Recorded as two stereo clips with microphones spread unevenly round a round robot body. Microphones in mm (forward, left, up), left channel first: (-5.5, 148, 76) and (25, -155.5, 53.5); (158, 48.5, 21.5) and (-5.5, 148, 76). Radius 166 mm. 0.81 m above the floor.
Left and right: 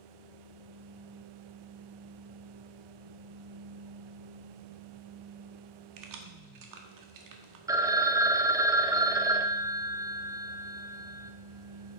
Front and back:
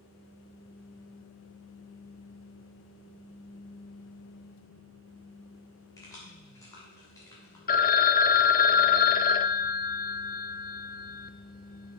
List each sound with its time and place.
6.0 s keys jangling: 105° right, 1.3 m
7.7 s a phone ringing: 10° right, 0.6 m